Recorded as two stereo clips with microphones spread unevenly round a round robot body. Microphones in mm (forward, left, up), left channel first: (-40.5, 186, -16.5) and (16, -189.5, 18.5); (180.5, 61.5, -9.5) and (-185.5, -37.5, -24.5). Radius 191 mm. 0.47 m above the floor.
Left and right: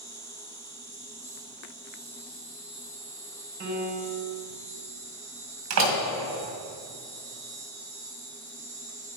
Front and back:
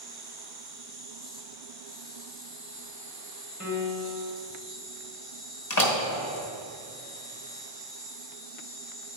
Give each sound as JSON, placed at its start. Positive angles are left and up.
{"t": 0.0, "sound": "an insect", "azimuth_deg": 40, "distance_m": 1.2}
{"t": 3.6, "sound": "a piano", "azimuth_deg": -40, "distance_m": 1.6}
{"t": 5.7, "sound": "a door slam", "azimuth_deg": -30, "distance_m": 2.0}